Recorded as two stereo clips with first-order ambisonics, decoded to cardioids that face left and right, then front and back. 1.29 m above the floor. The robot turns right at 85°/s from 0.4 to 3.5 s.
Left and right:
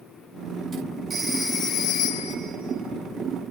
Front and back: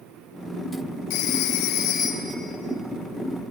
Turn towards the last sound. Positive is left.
turn(degrees=-170)